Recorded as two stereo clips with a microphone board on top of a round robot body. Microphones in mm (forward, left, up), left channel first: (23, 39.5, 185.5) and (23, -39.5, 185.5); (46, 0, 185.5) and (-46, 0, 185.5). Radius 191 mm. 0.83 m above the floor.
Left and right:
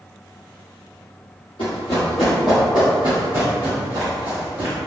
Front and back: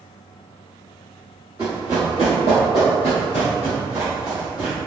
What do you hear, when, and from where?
1.6 s running footsteps: 115° left, 1.1 m; by 4.8 s 100° right, 2 m